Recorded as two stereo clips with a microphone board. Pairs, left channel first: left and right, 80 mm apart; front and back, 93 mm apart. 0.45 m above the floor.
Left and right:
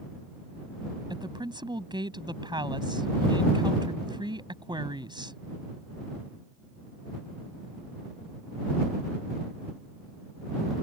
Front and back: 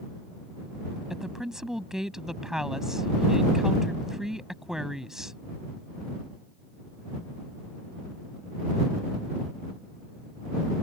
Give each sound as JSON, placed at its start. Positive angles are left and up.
{"t": 1.1, "sound": "a woman speaking", "azimuth_deg": -95}